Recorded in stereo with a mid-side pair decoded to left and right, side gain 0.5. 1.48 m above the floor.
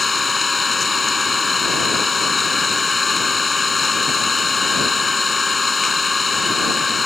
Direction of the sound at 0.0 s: 20° left.